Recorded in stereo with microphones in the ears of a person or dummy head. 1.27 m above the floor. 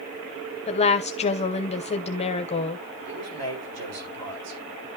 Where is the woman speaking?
30° left (ahead or behind), 0.9 m.